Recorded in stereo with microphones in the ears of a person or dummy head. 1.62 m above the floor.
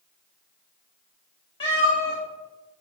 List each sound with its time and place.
1.6 s a cat meowing: 30° left (ahead or behind), 2.5 m